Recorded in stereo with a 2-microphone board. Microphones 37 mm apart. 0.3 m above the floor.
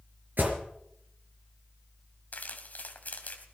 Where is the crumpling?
50° left (ahead or behind), 2.5 m.